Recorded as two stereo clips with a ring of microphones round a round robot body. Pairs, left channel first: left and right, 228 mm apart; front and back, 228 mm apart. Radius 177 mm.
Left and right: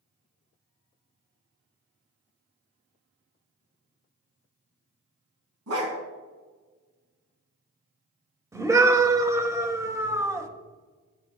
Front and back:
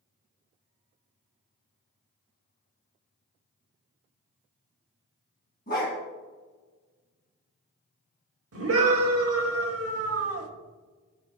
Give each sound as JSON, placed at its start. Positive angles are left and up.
{"t": 5.7, "sound": "a dog barking", "azimuth_deg": -60, "distance_m": 2.5}
{"t": 8.5, "sound": "a scream", "azimuth_deg": -165, "distance_m": 2.0}